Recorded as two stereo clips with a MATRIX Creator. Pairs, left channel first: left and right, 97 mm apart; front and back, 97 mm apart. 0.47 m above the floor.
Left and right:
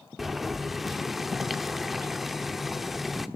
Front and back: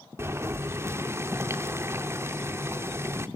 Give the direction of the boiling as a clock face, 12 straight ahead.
6 o'clock.